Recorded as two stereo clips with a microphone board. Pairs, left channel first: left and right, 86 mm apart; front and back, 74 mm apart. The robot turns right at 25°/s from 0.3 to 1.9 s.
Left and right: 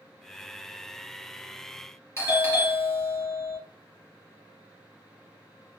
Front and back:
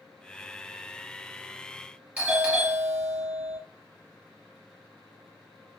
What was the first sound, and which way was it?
A doorbell, 120° left.